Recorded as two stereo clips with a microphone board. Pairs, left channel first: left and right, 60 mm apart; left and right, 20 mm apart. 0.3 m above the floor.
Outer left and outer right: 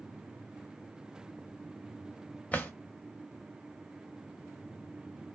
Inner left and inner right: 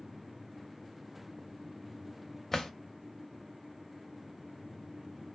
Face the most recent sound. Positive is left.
turn(degrees=25)  # may be behind; listen again after turning